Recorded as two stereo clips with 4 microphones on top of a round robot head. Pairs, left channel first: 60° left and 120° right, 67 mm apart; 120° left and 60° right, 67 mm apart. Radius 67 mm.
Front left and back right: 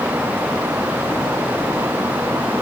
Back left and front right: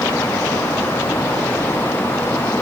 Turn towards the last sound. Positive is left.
No sound to turn to.